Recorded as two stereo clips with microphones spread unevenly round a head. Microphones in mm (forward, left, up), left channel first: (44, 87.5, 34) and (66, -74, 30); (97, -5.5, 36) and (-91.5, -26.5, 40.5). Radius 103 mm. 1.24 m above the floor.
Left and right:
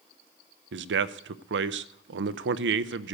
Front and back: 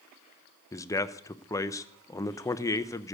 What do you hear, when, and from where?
0.7 s a man speaking: 70° right, 0.6 m